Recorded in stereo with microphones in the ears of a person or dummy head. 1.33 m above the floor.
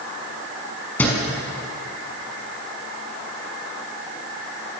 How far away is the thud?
About 5.5 m.